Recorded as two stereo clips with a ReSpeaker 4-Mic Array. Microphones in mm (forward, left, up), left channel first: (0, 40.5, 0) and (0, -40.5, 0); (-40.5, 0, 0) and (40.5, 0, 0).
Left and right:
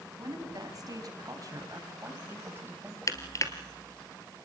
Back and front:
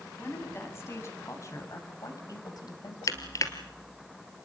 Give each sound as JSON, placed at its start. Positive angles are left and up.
{"t": 0.2, "sound": "a woman speaking", "azimuth_deg": -120, "distance_m": 5.5}
{"t": 3.1, "sound": "crushing", "azimuth_deg": 135, "distance_m": 2.0}